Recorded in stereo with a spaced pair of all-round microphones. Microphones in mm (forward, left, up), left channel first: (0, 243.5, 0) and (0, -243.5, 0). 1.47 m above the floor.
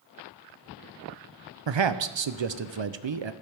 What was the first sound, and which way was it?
A man speaking, 65° right (ahead or behind).